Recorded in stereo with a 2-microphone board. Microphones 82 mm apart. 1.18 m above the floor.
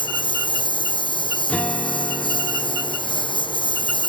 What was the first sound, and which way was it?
A lawn mower, 80° left.